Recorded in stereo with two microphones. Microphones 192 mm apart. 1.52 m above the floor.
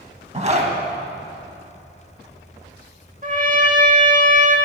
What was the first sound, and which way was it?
A zipper, 40° right (ahead or behind).